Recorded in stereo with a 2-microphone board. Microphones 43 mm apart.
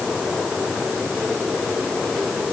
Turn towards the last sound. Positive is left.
No sound to turn to.